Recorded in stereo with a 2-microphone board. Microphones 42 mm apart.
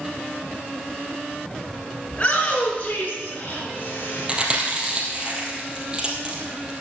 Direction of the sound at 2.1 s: 25° left (ahead or behind).